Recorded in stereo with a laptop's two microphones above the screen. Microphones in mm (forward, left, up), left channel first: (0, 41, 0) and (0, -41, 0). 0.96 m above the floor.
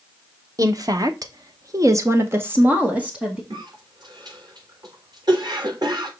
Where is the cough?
55° right (ahead or behind), 3.5 m.